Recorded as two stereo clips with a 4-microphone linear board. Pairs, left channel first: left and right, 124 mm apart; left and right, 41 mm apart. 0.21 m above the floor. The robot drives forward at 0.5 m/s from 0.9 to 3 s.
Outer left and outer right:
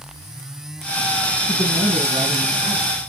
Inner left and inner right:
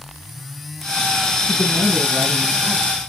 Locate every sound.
1.5 s a woman speaking: 50° right (ahead or behind), 1.6 m